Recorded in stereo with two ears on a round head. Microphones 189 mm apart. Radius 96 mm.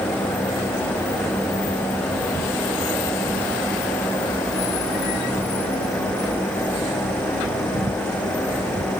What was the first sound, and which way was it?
Only background noise.